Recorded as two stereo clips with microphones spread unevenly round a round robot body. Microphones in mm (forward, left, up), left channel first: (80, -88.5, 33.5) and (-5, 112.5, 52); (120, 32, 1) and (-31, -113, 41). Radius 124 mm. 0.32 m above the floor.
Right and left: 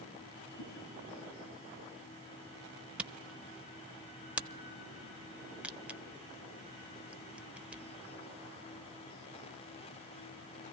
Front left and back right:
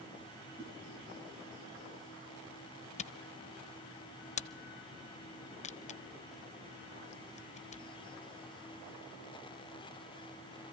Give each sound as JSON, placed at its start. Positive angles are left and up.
{"t": 0.6, "sound": "a whoosh", "azimuth_deg": -75, "distance_m": 6.5}
{"t": 3.0, "sound": "a camera shutter", "azimuth_deg": 25, "distance_m": 0.6}